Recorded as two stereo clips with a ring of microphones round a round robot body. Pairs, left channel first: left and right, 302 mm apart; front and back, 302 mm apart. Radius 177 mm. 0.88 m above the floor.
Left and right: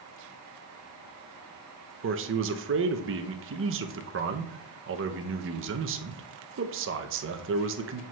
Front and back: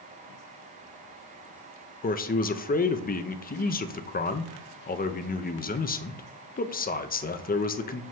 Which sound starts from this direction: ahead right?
A man speaking, at 2.0 s.